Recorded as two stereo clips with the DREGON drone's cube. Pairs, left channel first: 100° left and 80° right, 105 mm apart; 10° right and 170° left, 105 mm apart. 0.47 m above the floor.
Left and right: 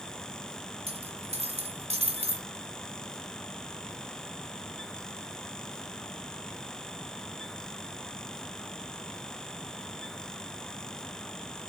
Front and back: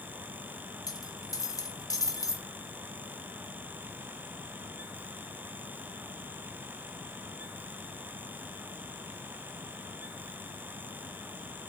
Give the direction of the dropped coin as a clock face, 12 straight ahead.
2 o'clock.